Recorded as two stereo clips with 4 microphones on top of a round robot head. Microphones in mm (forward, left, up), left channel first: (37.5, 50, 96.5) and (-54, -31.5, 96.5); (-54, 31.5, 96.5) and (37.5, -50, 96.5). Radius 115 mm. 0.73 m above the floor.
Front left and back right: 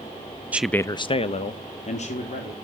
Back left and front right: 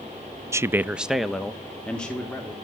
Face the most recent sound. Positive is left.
turn(degrees=55)